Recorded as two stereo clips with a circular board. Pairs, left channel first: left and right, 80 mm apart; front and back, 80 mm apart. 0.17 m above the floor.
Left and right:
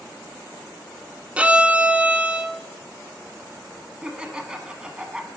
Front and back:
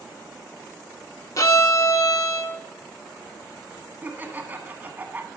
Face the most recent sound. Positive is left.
turn(degrees=-155)